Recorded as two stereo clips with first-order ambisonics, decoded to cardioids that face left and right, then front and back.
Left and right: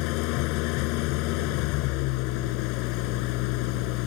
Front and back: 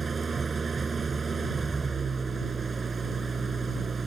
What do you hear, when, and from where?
0.0 s an engine running: 110° left